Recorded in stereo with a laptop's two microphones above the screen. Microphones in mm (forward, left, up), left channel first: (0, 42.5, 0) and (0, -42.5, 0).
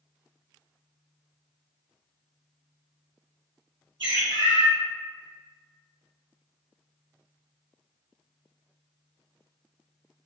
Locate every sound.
4.0 s a bird: 75° right (ahead or behind), 1.6 m